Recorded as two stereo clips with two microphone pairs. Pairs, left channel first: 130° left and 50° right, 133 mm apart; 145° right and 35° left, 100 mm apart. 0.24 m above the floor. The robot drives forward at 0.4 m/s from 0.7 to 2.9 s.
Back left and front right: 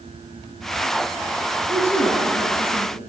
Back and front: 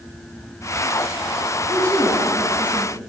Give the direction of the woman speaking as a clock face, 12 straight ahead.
2 o'clock.